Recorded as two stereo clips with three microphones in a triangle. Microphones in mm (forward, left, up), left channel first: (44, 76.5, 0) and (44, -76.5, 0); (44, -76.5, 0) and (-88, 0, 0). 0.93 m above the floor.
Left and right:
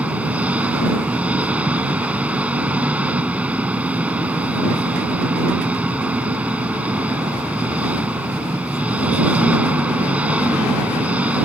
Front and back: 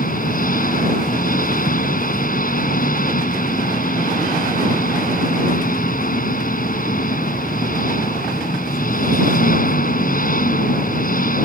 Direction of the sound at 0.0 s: 10° right.